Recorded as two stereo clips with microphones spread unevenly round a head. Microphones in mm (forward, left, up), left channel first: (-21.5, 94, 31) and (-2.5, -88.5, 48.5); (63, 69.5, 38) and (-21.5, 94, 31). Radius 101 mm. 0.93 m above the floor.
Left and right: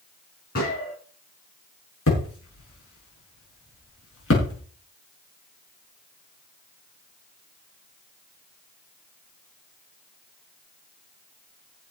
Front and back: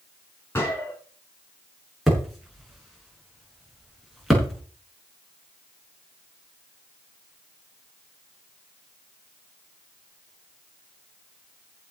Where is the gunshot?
50° left, 7.5 m.